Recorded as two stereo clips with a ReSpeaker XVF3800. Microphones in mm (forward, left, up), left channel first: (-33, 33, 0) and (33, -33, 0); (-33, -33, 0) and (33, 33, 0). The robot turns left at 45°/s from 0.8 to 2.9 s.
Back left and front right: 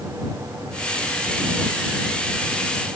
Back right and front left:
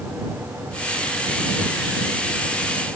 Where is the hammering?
I don't hear hammering.